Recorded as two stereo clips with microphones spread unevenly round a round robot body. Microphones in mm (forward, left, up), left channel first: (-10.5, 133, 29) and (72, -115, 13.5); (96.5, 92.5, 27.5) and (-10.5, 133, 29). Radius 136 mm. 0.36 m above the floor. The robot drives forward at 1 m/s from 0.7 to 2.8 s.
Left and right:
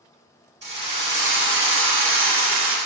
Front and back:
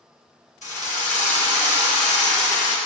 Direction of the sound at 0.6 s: 20° right.